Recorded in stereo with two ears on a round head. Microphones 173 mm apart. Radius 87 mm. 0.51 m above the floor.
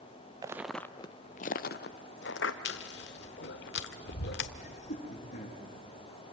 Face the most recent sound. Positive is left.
turn(degrees=40)  # may be behind; listen again after turning